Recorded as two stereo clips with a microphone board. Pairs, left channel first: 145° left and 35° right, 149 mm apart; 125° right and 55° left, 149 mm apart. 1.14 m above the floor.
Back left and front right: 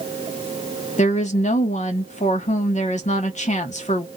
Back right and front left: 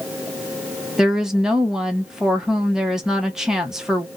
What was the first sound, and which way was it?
A woman speaking, 140° left.